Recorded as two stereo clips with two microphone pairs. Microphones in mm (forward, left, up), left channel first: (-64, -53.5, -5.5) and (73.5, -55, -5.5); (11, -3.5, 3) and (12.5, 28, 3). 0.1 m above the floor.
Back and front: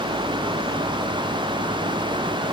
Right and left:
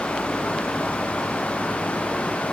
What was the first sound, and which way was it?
Only background noise.